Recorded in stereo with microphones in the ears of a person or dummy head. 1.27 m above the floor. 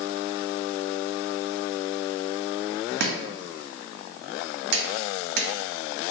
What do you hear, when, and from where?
3.0 s chopping: 60° right (ahead or behind), 0.7 m